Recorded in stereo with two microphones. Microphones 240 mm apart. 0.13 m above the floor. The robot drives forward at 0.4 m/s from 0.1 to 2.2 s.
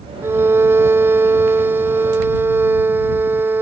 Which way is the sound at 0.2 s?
10° right (ahead or behind).